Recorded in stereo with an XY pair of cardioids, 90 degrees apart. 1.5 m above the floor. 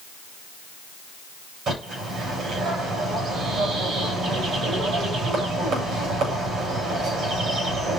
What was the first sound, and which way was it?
A bird, 70° right.